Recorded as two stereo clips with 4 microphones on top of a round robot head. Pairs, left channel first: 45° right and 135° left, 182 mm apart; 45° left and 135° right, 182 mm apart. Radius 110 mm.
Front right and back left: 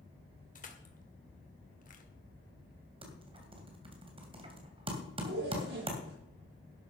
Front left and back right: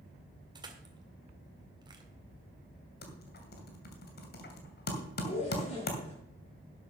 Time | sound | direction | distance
0.6 | crushing | 75° right | 2 m
3.0 | typing on a keyboard | 75° left | 2.5 m
5.2 | a zipper | 100° left | 7 m